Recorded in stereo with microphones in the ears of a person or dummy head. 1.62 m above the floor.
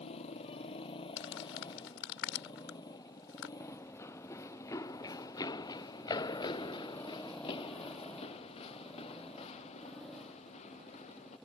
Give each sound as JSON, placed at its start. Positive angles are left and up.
{"t": 0.0, "sound": "a motorcycle", "side_deg": 35}
{"t": 1.2, "sound": "crumpling", "side_deg": 80}
{"t": 3.6, "sound": "running footsteps", "side_deg": 15}